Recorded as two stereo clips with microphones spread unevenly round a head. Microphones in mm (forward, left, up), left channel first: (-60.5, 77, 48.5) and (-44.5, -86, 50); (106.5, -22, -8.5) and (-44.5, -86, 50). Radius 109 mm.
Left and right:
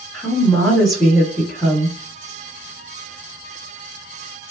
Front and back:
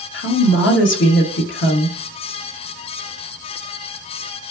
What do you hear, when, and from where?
0.1 s a woman speaking: 5° left, 1.3 m